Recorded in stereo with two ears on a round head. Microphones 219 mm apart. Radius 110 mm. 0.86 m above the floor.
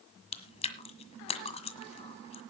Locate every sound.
0.3 s chewing: 25° left (ahead or behind), 1.6 m